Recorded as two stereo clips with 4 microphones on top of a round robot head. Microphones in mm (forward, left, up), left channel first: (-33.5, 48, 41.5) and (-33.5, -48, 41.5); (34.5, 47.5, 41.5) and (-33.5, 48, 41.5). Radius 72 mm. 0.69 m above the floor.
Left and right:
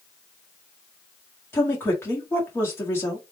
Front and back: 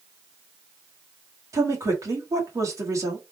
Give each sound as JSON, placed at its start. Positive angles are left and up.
{"t": 1.5, "sound": "a woman speaking", "azimuth_deg": 155, "distance_m": 1.5}